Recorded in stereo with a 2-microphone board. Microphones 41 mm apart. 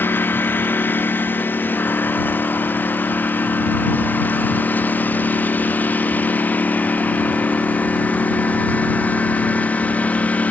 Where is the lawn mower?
60° left (ahead or behind); by 10.5 s 40° left (ahead or behind).